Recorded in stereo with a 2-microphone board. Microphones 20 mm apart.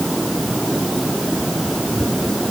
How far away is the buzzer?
No buzzer in this recording.